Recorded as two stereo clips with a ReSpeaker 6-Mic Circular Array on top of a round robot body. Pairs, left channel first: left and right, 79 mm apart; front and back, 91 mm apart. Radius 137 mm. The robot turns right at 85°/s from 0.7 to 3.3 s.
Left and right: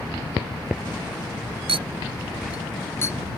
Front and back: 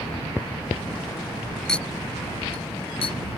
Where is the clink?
85° right; by 3.2 s 40° left.